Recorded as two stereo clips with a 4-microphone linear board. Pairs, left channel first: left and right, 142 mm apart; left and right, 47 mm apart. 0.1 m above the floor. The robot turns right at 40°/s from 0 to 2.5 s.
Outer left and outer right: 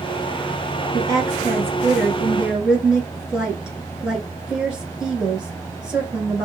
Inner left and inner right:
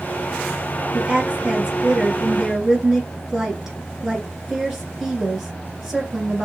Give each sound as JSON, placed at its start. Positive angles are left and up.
{"t": 0.9, "sound": "a woman speaking", "side_deg": -25, "distance_m": 1.1}